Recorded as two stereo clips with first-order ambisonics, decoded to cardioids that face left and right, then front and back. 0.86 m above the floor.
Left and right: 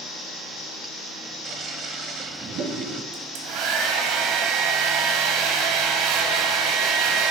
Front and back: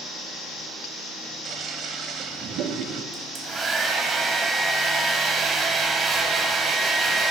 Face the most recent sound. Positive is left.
turn(degrees=-105)